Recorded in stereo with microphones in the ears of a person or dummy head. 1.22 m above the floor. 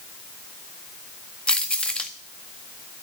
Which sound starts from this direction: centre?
Keys jangling, at 1.5 s.